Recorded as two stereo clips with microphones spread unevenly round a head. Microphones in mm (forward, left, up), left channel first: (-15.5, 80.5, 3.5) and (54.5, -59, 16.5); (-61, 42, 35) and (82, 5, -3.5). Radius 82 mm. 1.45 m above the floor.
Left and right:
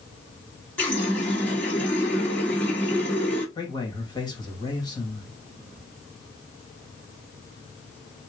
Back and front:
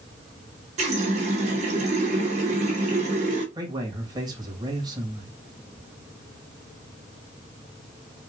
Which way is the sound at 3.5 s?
50° left.